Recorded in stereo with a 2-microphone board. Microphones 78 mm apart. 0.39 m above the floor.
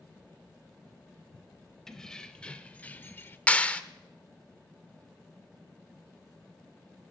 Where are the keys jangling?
5° left (ahead or behind), 1.3 m; by 3.4 s 30° left (ahead or behind), 0.8 m.